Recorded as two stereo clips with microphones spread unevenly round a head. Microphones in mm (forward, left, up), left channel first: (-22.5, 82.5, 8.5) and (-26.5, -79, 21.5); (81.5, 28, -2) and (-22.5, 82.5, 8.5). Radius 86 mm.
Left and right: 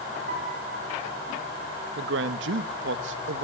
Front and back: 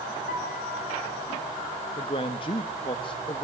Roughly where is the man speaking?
Right.